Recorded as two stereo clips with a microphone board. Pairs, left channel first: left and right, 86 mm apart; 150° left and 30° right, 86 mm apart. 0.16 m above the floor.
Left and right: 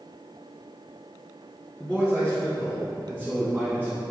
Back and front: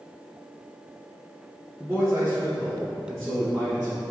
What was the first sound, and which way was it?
A man speaking, 20° left.